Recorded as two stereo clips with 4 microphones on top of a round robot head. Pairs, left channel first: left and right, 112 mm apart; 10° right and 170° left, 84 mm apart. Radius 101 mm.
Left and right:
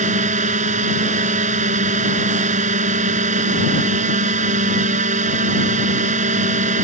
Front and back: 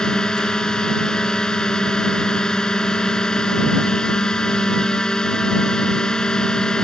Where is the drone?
90° right.